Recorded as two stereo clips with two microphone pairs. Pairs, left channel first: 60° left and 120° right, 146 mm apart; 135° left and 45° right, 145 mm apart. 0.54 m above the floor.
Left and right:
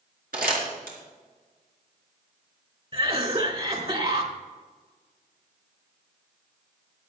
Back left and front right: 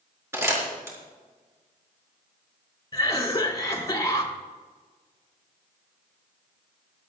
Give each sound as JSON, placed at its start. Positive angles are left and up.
{"t": 0.3, "sound": "crumpling", "azimuth_deg": -120, "distance_m": 4.0}
{"t": 2.9, "sound": "a cough", "azimuth_deg": -165, "distance_m": 2.5}